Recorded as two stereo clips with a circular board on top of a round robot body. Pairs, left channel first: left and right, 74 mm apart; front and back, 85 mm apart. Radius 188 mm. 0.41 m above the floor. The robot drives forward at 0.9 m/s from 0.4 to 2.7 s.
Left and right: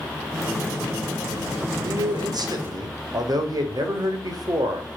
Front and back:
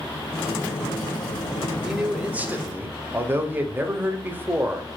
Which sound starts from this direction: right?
A man speaking, at 1.8 s.